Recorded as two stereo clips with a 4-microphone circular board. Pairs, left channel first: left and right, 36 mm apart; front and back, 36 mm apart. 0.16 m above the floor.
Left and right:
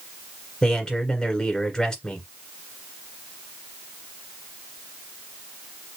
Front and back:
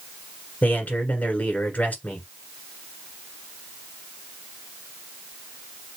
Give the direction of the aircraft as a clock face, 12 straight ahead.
I don't hear an aircraft.